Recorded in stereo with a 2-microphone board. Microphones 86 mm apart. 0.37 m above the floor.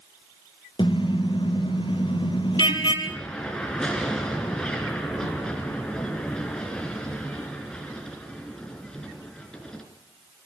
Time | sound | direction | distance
0.8 | a car horn | 70° left (ahead or behind) | 4.5 m
3.0 | an explosion | 10° left (ahead or behind) | 3.5 m